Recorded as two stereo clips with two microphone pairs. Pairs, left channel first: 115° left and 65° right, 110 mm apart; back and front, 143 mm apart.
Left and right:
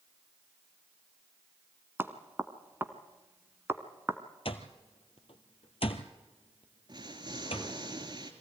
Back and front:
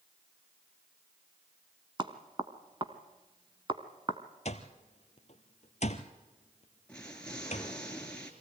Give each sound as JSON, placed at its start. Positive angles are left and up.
{"t": 2.0, "sound": "knocking", "azimuth_deg": -15, "distance_m": 1.1}
{"t": 4.5, "sound": "an alarm clock", "azimuth_deg": 145, "distance_m": 1.3}
{"t": 6.9, "sound": "an explosion", "azimuth_deg": -100, "distance_m": 2.0}